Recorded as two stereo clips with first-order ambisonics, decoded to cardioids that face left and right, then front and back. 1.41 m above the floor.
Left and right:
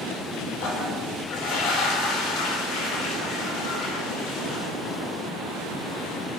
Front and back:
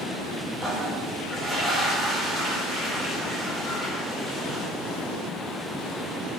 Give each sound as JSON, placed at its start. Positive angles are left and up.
{"t": 0.6, "sound": "a toilet flushing", "azimuth_deg": 105, "distance_m": 0.6}